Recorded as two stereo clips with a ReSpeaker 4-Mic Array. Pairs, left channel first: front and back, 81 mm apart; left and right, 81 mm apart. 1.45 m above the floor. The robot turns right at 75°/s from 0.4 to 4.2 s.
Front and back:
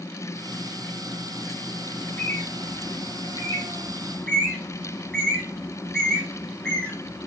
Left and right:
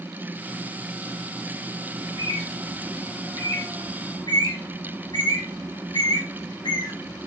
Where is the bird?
85° right, 2.0 m; by 7.3 s 80° left, 2.0 m.